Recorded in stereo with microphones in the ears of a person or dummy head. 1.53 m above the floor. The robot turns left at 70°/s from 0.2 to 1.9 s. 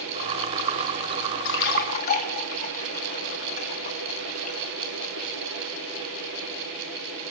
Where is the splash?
65° left (ahead or behind), 1.7 m; by 4.6 s 45° left (ahead or behind), 1.7 m.